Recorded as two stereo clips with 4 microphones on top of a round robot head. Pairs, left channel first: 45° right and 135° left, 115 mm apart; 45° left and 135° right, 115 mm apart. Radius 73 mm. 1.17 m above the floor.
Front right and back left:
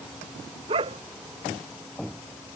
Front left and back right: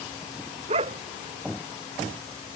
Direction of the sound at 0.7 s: 175° right.